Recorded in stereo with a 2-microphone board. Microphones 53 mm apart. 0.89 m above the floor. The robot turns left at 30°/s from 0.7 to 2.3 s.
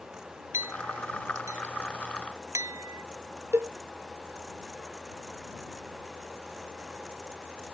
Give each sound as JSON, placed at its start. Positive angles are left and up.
{"t": 0.5, "sound": "a clink", "side_deg": -55}
{"t": 3.5, "sound": "a cowbell", "side_deg": -60}